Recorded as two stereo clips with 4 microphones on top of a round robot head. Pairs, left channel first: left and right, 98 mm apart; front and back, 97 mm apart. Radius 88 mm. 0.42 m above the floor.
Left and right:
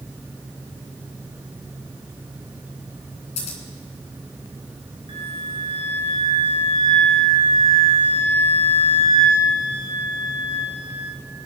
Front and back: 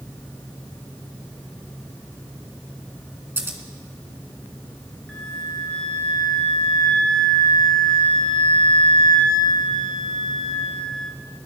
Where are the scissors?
115° left, 2.5 m.